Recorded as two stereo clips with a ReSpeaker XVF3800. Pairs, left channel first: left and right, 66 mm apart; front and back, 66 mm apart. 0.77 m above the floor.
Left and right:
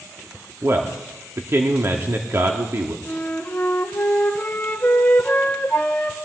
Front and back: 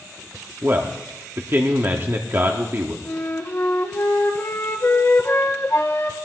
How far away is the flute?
About 1.3 m.